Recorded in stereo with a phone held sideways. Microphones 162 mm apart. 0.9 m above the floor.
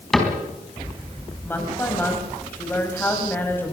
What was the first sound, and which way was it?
A cupboard door, 5° left (ahead or behind).